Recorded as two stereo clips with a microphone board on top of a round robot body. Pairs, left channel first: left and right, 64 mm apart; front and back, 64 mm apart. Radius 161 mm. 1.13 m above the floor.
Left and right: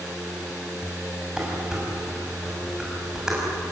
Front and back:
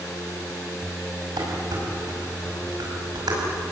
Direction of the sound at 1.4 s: 170° right.